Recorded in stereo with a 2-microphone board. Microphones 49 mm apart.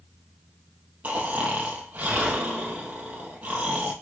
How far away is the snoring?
About 2 m.